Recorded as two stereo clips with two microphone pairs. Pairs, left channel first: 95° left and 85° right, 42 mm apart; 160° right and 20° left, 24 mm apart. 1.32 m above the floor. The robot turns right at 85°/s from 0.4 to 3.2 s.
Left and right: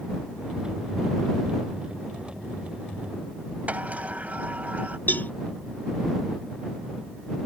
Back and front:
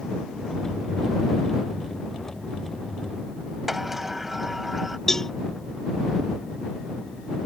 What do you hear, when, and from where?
3.7 s a sliding door: 60° right
5.1 s a cowbell: 130° left